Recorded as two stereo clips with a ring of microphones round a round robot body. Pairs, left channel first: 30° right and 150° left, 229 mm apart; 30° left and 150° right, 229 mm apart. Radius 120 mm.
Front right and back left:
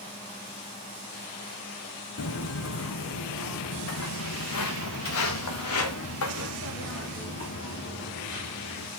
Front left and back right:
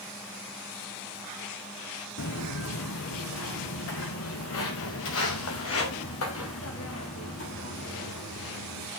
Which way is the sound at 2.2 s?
Straight ahead.